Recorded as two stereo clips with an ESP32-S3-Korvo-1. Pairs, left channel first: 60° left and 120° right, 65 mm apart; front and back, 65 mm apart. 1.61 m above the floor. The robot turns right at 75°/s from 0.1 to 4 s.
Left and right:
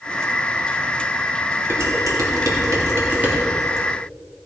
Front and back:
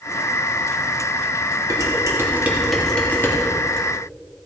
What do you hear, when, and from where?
1.7 s dishes clattering: 170° right, 2.5 m; by 3.4 s 45° right, 2.5 m